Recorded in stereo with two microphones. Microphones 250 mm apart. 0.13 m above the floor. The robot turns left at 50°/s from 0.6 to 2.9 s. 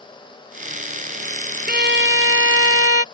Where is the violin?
45° right; by 3.0 s 105° right.